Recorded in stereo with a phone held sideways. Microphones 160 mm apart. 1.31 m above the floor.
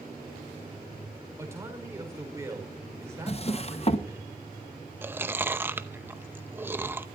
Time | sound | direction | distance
1.4 | a man speaking | 15° right (ahead or behind) | 5 m
3.3 | a drawer | 40° left (ahead or behind) | 0.7 m
5.0 | chewing | 15° right (ahead or behind) | 0.7 m